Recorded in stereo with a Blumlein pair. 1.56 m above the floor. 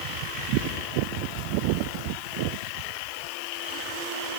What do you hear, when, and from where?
Only background noise.